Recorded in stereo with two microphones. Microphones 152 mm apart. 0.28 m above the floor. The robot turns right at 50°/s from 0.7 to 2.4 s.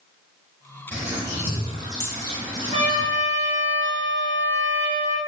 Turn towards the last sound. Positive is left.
turn(degrees=-45)  # may be behind; listen again after turning